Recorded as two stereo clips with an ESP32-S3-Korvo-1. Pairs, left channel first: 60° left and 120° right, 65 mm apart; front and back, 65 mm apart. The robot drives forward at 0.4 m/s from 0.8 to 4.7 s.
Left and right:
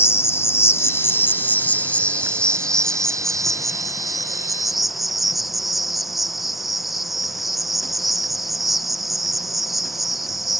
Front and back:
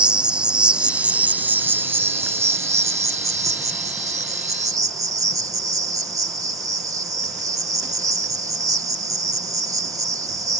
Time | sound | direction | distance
0.0 | an insect | 105° left | ?